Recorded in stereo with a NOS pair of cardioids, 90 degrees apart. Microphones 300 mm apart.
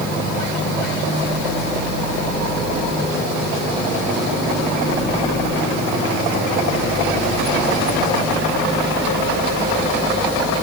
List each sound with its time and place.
Only background noise.